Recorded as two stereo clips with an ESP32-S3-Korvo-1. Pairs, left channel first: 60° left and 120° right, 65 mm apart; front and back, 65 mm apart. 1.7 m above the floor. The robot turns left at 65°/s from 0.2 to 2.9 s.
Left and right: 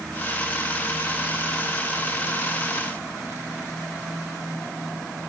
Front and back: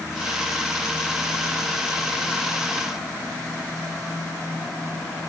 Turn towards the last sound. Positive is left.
No sound to turn to.